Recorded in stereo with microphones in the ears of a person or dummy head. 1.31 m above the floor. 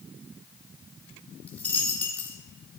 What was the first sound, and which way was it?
A dropped coin, 10° left (ahead or behind).